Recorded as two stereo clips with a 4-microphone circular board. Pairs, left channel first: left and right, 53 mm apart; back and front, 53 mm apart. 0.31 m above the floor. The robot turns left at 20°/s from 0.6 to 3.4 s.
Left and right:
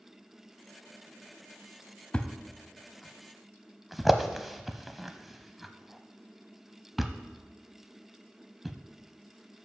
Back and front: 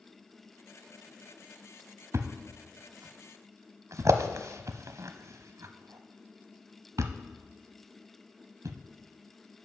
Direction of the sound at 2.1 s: 20° left.